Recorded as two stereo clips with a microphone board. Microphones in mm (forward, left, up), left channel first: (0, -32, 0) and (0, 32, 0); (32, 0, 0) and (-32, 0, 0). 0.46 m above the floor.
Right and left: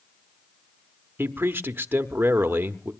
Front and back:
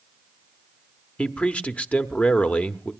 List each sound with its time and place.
1.2 s a man speaking: 60° left, 0.9 m